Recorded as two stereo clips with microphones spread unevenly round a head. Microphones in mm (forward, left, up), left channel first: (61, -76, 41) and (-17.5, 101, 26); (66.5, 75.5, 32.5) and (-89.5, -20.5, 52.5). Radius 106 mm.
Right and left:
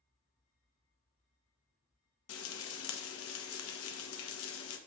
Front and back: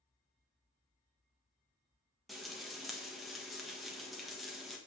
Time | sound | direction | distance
2.3 | frying | 55° right | 1.3 m